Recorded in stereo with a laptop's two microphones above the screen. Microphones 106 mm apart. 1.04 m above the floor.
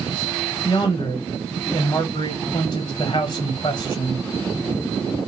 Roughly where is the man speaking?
Left.